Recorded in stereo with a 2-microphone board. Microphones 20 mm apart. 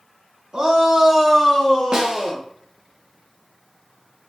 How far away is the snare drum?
About 0.8 m.